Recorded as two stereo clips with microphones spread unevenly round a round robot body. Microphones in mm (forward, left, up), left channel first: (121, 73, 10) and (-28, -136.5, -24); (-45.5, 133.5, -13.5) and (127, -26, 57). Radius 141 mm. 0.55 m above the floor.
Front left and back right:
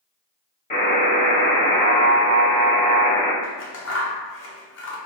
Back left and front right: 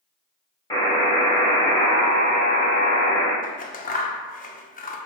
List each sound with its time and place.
0.7 s a buzzer: 115° left, 1.4 m
3.4 s scissors: 100° left, 0.6 m